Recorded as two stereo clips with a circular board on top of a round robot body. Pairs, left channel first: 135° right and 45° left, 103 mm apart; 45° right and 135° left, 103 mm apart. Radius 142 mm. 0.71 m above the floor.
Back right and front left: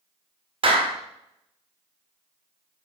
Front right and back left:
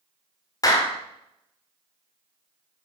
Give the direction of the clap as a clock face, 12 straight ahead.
12 o'clock.